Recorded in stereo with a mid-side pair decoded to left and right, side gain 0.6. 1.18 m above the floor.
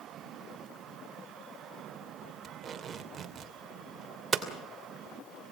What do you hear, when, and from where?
2.4 s tape being pulled: 35° right, 2.5 m
4.3 s hammering: 30° right, 2.5 m